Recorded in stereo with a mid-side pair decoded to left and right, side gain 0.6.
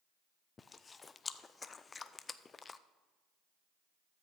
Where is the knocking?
No knocking in this recording.